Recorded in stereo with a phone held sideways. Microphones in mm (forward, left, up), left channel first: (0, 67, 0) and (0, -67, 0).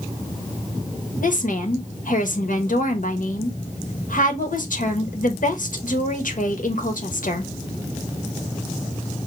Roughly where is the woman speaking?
Left.